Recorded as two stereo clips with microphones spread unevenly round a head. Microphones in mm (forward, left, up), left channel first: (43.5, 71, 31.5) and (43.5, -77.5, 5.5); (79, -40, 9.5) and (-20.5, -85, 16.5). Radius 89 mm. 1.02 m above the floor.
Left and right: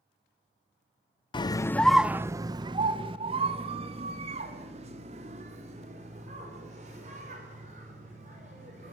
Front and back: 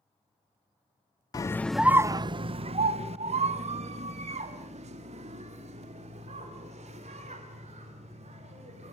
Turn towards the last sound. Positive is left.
turn(degrees=-140)